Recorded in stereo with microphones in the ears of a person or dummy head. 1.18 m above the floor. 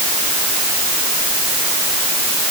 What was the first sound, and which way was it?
Only background noise.